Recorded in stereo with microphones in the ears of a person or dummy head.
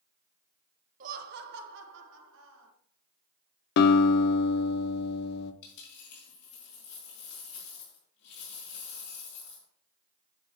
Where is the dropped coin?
65° left (ahead or behind), 4 m.